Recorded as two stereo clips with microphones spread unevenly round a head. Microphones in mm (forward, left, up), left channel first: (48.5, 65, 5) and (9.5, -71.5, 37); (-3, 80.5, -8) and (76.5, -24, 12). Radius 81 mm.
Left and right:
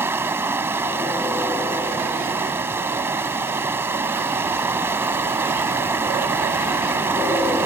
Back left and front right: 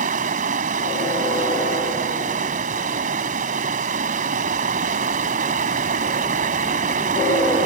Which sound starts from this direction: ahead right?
Running water, at 0.0 s.